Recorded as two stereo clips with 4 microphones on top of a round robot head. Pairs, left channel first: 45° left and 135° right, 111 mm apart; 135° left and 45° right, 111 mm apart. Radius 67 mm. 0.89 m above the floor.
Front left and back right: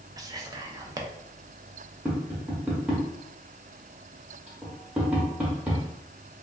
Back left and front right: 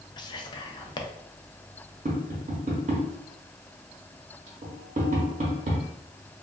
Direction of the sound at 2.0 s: 55° right.